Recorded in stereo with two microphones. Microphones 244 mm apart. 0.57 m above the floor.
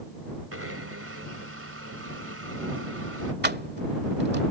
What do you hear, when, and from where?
0.5 s a blender: 65° right (ahead or behind)
3.4 s keys jangling: 45° right (ahead or behind)